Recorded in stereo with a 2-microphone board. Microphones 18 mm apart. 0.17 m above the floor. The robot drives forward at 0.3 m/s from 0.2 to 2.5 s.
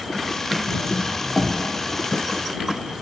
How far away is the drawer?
About 1.5 m.